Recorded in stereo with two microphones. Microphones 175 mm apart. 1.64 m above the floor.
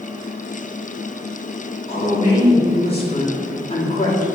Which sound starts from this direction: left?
A woman speaking, at 1.9 s.